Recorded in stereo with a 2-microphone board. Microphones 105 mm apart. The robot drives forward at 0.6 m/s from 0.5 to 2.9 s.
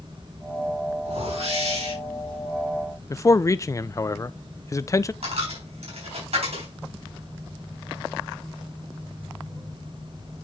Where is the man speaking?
30° left (ahead or behind), 0.5 m.